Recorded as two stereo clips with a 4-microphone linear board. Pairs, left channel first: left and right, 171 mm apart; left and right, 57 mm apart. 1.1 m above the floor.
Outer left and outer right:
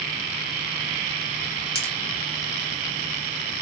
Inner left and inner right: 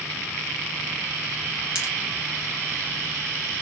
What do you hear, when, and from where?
1.8 s a pop: 20° right (ahead or behind), 1.9 m